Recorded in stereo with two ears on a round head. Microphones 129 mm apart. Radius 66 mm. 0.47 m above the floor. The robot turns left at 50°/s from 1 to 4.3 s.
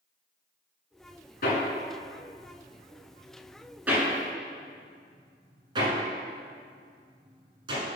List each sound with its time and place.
1.4 s hammering: 65° left (ahead or behind), 1.4 m; by 7.8 s 30° right (ahead or behind), 1.4 m